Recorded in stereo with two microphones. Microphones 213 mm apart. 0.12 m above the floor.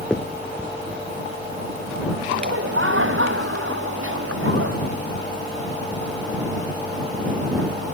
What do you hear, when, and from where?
0.1 s a finger snap: 5° left (ahead or behind)
2.3 s laughter: 75° right (ahead or behind)